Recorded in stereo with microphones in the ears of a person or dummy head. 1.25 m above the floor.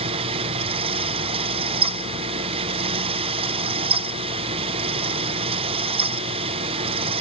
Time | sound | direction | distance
0.0 | a fan | 35° right (ahead or behind) | 0.7 m